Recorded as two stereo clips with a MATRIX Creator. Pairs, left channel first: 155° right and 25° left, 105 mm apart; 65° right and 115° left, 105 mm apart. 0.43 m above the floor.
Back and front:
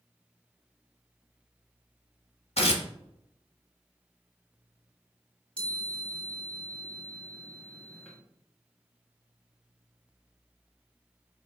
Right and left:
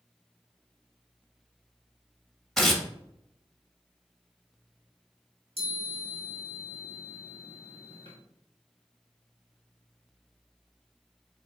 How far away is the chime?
About 1.6 m.